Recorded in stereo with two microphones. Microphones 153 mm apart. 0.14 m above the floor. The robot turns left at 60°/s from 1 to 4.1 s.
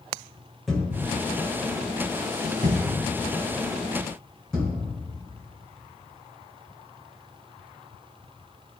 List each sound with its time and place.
0.7 s a thud: centre (ahead or behind), 5 m; by 4.8 s 5° left (ahead or behind), 5 m